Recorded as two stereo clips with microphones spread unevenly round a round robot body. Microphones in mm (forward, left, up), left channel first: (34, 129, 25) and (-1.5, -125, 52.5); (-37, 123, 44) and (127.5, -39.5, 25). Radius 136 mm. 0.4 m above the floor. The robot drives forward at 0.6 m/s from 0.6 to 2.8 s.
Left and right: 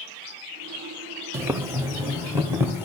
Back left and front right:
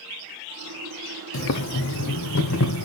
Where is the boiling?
Straight behind, 0.7 m.